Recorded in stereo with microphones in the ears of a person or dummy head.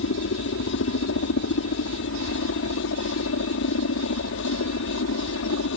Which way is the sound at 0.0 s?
70° left (ahead or behind).